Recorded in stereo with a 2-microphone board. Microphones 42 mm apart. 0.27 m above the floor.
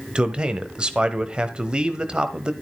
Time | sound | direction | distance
0.1 | a man speaking | 20° right (ahead or behind) | 1.1 m